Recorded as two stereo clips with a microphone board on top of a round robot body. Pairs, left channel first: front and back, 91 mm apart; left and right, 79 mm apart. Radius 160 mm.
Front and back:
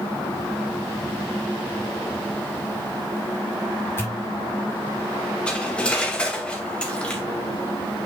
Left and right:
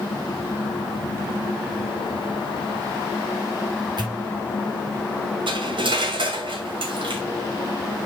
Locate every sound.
4.0 s a pop: 65° right, 5 m
5.5 s cutlery clinking: 80° right, 2.5 m